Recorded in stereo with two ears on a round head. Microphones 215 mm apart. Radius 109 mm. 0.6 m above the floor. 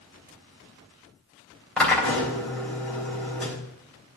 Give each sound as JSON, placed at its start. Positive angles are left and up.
{"t": 1.8, "sound": "a drill", "side_deg": 5, "distance_m": 3.5}